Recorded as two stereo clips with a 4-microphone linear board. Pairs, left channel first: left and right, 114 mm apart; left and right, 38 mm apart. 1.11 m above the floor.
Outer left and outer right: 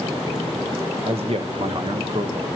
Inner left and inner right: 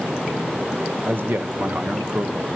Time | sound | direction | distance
1.0 | a man speaking | 65° right (ahead or behind) | 0.9 m